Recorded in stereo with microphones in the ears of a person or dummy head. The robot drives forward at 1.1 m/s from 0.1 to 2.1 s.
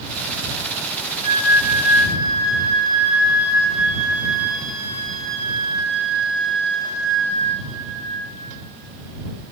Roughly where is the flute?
Right.